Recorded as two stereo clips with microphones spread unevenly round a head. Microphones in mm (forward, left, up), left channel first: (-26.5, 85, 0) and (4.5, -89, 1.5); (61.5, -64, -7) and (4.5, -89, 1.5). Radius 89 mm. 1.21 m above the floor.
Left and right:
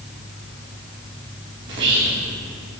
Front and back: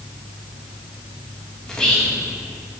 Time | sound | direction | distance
1.7 | whispering | 55° right | 2 m